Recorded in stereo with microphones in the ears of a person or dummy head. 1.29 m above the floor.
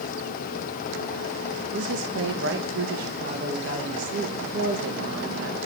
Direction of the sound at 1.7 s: 65° right (ahead or behind).